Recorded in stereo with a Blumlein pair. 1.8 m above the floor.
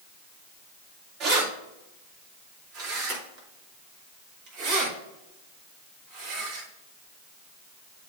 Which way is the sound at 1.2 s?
40° right.